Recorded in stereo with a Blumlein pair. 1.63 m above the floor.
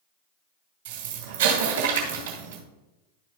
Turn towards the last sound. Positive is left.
turn(degrees=-50)